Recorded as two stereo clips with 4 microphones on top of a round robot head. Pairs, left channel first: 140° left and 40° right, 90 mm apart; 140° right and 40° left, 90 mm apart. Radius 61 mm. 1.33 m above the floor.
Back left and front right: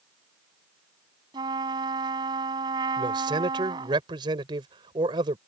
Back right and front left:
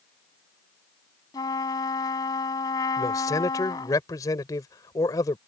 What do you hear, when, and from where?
1.3 s a trumpet: 85° right
3.0 s a man speaking: 85° right